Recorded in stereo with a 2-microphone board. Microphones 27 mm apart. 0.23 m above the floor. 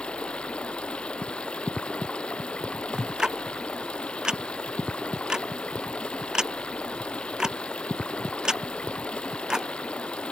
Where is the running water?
40° left (ahead or behind).